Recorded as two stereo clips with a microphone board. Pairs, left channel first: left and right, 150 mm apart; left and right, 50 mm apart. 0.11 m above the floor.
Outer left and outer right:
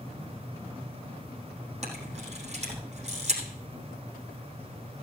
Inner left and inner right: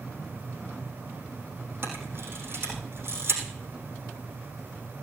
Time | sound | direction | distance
1.8 | a camera shutter | 45° right (ahead or behind) | 5 m